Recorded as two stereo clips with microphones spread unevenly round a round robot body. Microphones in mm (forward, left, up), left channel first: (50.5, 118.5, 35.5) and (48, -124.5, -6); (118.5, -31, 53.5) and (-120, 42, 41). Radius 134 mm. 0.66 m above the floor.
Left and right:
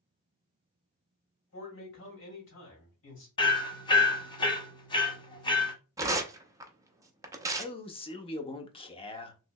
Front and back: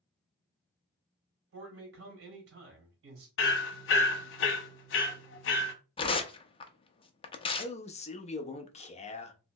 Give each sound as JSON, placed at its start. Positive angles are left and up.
{"t": 1.5, "sound": "a man speaking", "azimuth_deg": 135, "distance_m": 2.5}
{"t": 3.4, "sound": "hammering", "azimuth_deg": 15, "distance_m": 0.9}
{"t": 6.0, "sound": "tearing paper", "azimuth_deg": -60, "distance_m": 0.6}
{"t": 7.6, "sound": "a man speaking", "azimuth_deg": 25, "distance_m": 0.7}